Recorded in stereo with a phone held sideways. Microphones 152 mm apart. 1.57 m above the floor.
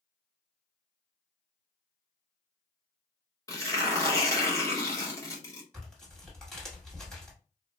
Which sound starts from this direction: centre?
Tearing paper, at 5.7 s.